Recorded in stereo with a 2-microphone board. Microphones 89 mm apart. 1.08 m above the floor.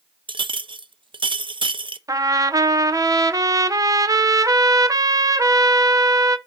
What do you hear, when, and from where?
0.3 s a clink: 70° right (ahead or behind), 0.5 m
2.1 s a trumpet: 40° right (ahead or behind), 0.6 m